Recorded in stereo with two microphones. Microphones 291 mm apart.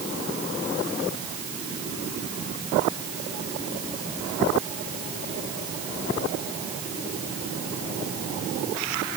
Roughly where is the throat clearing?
No throat clearing in this recording.